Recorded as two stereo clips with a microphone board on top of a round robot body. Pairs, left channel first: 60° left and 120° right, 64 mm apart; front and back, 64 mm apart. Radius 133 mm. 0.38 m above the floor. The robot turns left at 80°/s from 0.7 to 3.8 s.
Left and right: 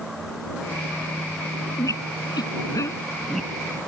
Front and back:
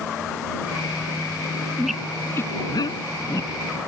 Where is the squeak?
100° left; by 3.8 s 60° right.